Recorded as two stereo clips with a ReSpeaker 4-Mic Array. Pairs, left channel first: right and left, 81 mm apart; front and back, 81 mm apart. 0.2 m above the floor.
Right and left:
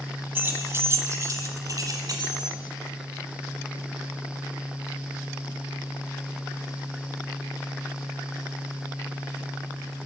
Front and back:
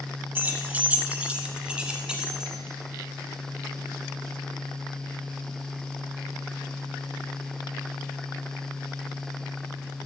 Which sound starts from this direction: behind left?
Keys jangling, at 0.3 s.